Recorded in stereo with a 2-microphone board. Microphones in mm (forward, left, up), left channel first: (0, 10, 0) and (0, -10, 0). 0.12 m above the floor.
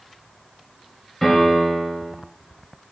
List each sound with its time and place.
1.2 s a piano: 15° left (ahead or behind), 2 m